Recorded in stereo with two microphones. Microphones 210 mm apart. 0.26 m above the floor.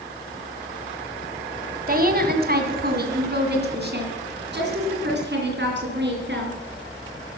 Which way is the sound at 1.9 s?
45° right (ahead or behind).